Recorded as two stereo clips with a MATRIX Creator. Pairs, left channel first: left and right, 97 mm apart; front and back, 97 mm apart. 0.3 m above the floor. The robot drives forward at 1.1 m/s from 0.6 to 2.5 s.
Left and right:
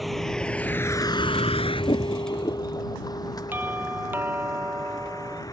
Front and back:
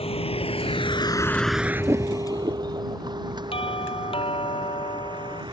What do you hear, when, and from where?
0.0 s a vehicle: straight ahead; by 5.5 s 140° left
3.5 s a doorbell: 20° right